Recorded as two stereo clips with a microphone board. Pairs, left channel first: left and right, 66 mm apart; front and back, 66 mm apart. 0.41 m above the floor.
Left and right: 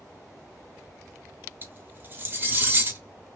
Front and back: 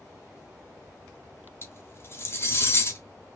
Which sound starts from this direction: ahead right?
Cutlery clinking, at 1.6 s.